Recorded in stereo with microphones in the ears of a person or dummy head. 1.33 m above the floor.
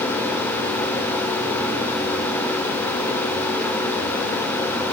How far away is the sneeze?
I don't hear a sneeze.